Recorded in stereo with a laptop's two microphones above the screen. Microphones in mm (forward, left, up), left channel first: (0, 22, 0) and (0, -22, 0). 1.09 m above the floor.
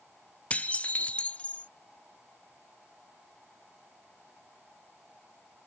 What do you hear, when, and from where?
0.5 s dishes clattering: 30° left (ahead or behind)